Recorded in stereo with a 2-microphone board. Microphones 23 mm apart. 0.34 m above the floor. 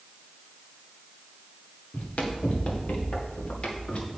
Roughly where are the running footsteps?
Left.